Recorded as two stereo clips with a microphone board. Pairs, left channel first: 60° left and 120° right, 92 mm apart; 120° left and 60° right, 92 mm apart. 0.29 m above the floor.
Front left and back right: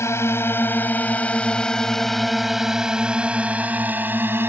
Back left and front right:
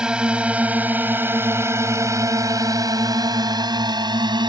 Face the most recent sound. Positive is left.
turn(degrees=-60)